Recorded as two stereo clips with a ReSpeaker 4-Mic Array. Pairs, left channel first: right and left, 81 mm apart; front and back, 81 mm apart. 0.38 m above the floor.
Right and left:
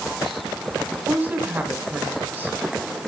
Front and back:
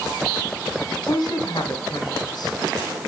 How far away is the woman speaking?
About 3 m.